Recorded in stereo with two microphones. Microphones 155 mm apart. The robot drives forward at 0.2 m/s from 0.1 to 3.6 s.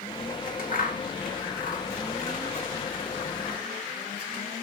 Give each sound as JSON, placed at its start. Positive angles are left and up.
{"t": 0.3, "sound": "scissors", "side_deg": 65, "distance_m": 1.3}